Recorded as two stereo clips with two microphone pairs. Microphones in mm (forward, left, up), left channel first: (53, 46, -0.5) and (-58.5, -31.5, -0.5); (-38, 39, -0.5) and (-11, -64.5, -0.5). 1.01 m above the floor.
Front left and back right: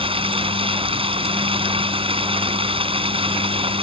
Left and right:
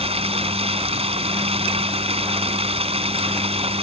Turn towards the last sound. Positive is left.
turn(degrees=-100)